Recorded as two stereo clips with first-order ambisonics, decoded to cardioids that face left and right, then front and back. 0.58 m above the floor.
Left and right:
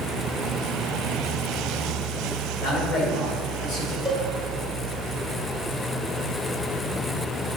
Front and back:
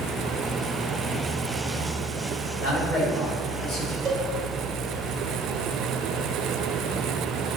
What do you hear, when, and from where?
2.6 s a man speaking: 65° left, 1.7 m
4.0 s a cowbell: 150° left, 1.2 m